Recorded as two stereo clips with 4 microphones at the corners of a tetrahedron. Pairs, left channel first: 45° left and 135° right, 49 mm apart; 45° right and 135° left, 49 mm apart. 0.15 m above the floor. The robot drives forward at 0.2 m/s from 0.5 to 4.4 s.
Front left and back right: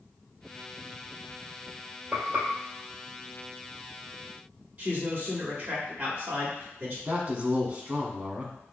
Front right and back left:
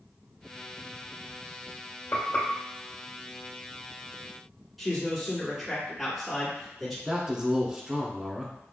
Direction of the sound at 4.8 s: 130° right.